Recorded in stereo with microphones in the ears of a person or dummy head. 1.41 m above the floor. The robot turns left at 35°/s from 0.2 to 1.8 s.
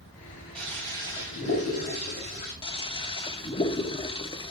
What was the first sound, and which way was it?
A toilet flushing, 175° left.